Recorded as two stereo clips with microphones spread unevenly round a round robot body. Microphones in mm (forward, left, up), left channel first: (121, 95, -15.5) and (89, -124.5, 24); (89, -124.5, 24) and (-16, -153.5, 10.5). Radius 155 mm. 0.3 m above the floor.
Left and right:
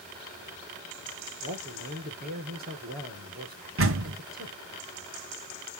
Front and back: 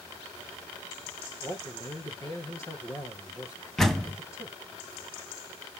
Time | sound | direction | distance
1.4 | a man speaking | 50° right | 5.5 m
3.8 | a door slam | 75° right | 2 m